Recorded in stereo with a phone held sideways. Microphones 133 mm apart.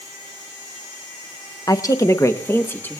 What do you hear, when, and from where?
1.7 s a woman speaking: 25° left (ahead or behind), 0.7 m; by 3.0 s 15° left (ahead or behind), 1.2 m